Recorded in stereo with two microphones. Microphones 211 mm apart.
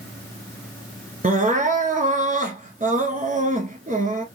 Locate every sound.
1.2 s crying: 40° right (ahead or behind), 1.1 m